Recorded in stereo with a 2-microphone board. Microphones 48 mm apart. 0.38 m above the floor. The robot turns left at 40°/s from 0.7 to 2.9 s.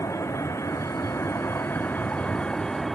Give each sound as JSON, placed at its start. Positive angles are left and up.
{"t": 0.0, "sound": "a vehicle", "side_deg": 85}